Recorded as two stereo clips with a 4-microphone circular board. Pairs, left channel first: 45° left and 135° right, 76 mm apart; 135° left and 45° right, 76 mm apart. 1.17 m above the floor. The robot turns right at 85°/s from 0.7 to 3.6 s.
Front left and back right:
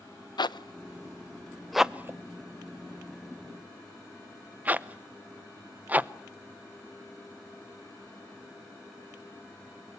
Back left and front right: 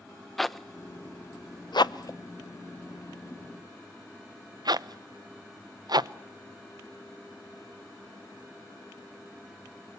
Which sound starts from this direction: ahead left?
A zipper, at 0.4 s.